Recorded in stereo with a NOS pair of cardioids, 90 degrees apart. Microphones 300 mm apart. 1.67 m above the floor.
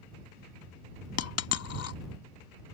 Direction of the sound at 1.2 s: 60° left.